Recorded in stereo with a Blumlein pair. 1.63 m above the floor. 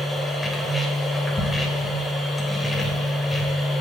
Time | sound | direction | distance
0.0 | a machine running | 10° left | 1.6 m